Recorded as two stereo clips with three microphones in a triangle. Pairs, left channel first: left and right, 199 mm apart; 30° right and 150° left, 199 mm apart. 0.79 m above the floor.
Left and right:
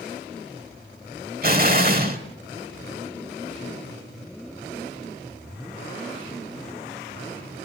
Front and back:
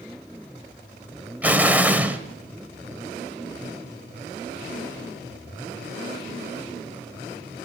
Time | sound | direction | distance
1.4 | an explosion | 130° right | 1.2 m